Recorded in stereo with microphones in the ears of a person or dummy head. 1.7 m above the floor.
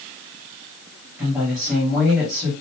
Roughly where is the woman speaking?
Centre.